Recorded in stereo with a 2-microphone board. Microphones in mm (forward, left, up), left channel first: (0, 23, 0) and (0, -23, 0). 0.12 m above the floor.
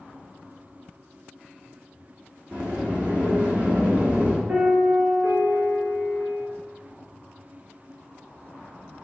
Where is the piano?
35° right (ahead or behind), 1.1 m.